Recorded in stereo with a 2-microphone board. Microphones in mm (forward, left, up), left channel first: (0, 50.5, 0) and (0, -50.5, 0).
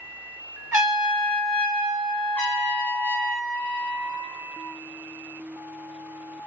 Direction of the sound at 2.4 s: 20° left (ahead or behind).